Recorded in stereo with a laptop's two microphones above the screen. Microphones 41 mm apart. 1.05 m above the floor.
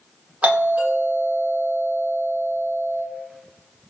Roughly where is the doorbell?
Right.